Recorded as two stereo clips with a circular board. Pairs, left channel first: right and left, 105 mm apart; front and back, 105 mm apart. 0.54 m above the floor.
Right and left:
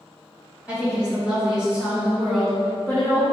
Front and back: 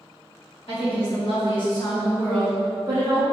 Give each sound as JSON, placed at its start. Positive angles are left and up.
{"t": 0.7, "sound": "a woman speaking", "azimuth_deg": 10, "distance_m": 1.8}